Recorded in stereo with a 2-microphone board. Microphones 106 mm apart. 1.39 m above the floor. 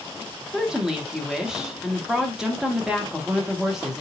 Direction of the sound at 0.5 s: 5° right (ahead or behind).